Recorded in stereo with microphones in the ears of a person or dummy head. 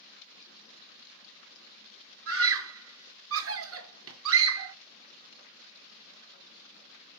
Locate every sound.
2.3 s a scream: 70° right (ahead or behind), 1.5 m